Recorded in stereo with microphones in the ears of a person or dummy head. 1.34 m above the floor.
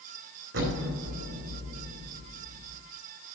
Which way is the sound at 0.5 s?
60° right (ahead or behind).